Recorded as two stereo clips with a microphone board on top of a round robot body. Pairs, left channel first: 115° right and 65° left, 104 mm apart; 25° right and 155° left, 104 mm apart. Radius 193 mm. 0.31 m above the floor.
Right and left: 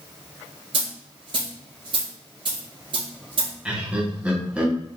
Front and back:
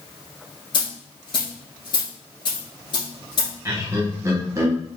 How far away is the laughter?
About 1.5 m.